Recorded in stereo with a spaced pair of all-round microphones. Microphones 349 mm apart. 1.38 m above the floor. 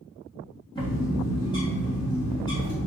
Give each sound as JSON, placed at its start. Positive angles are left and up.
{"t": 0.8, "sound": "a bird", "side_deg": 10, "distance_m": 1.4}